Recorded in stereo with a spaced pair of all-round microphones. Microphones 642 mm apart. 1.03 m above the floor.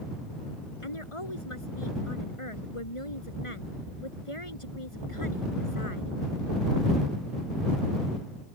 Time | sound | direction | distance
0.8 | a woman speaking | 50° left (ahead or behind) | ?